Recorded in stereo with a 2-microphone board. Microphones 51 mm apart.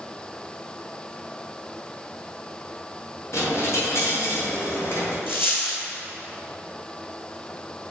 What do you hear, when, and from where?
3.3 s a dropped coin: 65° left (ahead or behind), 2.5 m
5.3 s a dropped coin: 50° left (ahead or behind), 1.8 m